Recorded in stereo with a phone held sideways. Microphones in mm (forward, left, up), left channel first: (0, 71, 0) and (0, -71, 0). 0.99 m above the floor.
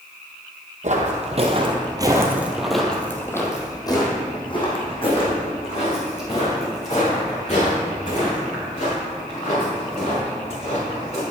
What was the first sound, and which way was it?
Footsteps, 60° right (ahead or behind).